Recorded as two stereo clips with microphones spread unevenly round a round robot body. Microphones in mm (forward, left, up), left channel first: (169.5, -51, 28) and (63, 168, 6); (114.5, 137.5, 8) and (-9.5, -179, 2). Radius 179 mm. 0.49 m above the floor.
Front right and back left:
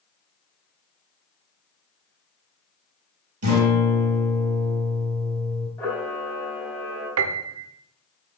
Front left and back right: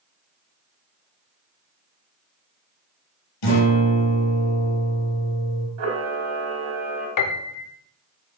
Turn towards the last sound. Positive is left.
turn(degrees=105)